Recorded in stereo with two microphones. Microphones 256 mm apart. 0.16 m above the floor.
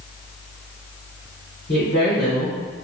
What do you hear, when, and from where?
1.7 s a woman speaking: 40° left (ahead or behind), 1.8 m